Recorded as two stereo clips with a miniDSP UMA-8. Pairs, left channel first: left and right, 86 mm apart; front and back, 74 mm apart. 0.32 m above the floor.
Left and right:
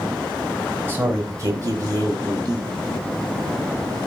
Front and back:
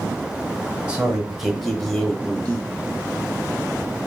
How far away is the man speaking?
About 0.9 m.